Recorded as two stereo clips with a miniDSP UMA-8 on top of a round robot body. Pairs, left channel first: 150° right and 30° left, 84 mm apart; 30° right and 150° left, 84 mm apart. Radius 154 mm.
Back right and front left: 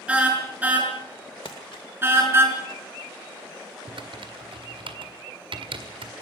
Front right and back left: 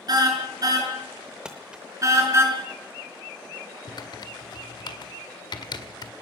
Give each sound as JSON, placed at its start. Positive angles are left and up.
{"t": 0.1, "sound": "a car horn", "azimuth_deg": 110, "distance_m": 6.0}
{"t": 1.4, "sound": "crumpling", "azimuth_deg": -135, "distance_m": 0.5}
{"t": 3.9, "sound": "typing on a keyboard", "azimuth_deg": 5, "distance_m": 2.0}